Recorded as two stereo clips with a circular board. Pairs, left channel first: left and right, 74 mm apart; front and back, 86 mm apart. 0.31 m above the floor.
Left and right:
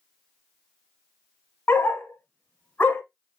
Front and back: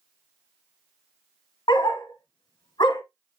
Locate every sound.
1.7 s a dog barking: 25° left, 1.0 m